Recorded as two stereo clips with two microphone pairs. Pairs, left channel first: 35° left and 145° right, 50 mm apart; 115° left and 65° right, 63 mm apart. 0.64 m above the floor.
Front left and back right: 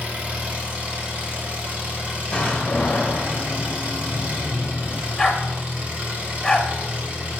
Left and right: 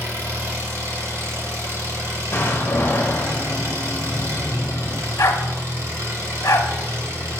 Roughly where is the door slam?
Left.